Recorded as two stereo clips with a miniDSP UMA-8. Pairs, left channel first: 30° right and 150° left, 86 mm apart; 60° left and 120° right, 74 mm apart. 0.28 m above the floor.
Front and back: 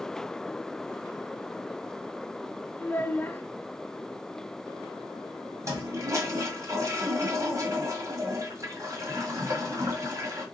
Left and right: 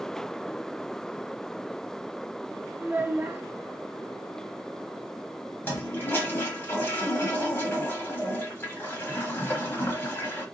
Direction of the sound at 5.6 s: 110° left.